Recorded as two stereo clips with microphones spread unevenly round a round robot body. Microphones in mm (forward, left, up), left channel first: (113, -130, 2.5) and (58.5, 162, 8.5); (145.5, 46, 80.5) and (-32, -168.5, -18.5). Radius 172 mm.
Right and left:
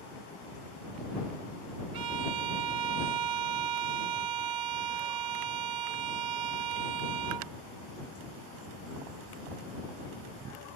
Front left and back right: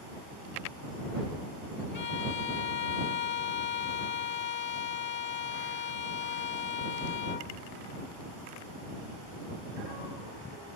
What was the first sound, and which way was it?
A violin, 110° left.